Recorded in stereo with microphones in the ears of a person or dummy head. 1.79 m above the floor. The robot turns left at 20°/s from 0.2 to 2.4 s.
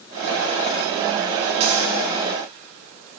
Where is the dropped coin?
35° right (ahead or behind), 5 m; by 1.9 s 40° right (ahead or behind), 5 m.